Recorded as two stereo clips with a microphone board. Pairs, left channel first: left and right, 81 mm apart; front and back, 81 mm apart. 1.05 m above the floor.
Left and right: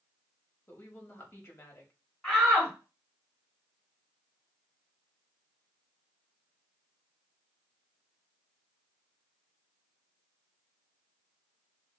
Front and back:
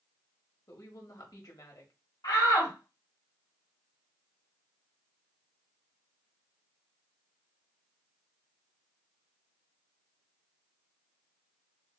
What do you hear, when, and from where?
0.7 s a woman speaking: 35° left, 1.4 m
2.2 s a shout: 10° left, 3 m